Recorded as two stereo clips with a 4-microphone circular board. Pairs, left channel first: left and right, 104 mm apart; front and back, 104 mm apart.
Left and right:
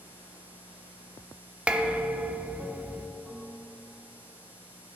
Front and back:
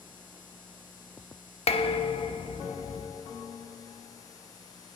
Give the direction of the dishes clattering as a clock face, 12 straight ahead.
12 o'clock.